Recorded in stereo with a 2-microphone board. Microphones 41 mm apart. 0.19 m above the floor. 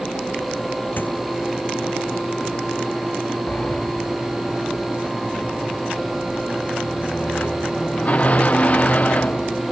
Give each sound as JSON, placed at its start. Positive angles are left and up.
{"t": 1.0, "sound": "a squeak", "side_deg": 55}
{"t": 3.5, "sound": "a sliding door", "side_deg": 40}